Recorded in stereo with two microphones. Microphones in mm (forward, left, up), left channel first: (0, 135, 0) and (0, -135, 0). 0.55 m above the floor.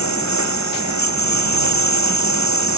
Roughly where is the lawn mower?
Left.